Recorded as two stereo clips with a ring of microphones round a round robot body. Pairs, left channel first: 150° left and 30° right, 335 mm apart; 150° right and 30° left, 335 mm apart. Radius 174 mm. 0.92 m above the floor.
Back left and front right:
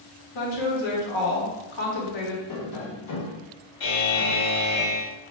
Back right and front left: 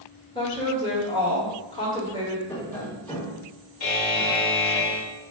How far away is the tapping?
About 1.5 m.